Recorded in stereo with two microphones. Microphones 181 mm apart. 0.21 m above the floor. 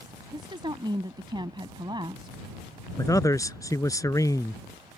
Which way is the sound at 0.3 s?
25° right (ahead or behind).